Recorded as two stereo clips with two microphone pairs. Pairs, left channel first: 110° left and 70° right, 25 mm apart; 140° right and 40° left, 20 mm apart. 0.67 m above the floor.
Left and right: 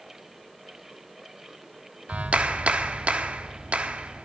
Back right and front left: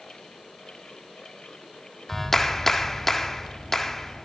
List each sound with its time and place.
2.1 s a clap: 70° right, 0.9 m